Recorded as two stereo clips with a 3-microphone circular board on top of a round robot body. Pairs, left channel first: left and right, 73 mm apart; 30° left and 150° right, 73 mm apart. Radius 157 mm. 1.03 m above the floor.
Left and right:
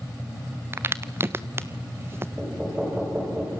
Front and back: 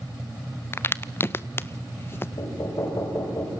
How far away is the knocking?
About 5 m.